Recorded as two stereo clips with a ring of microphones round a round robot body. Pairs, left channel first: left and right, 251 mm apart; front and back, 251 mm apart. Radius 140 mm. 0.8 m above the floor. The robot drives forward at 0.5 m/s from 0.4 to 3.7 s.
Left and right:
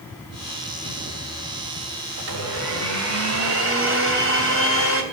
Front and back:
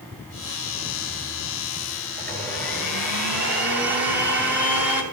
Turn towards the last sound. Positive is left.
turn(degrees=-125)